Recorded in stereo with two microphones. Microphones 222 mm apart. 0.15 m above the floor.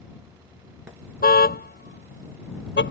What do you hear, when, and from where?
1.2 s a car horn: 45° left (ahead or behind); by 2.9 s 55° left (ahead or behind)